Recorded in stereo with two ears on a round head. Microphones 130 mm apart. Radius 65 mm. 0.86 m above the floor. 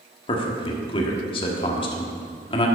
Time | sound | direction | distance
0.3 | a man speaking | 35° left (ahead or behind) | 1.3 m